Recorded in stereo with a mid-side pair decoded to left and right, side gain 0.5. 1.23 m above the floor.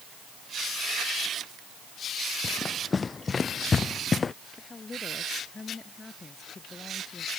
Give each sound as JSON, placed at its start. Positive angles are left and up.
{"t": 2.4, "sound": "running footsteps", "azimuth_deg": 30}
{"t": 4.6, "sound": "a woman speaking", "azimuth_deg": 25}